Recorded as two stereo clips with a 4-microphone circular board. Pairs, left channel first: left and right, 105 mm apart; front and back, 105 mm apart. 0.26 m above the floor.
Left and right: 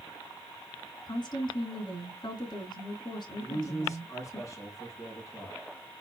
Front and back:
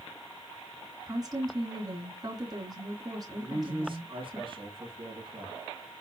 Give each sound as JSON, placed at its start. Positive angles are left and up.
{"t": 1.1, "sound": "a woman speaking", "azimuth_deg": 130, "distance_m": 2.5}
{"t": 3.4, "sound": "a man speaking", "azimuth_deg": 145, "distance_m": 3.0}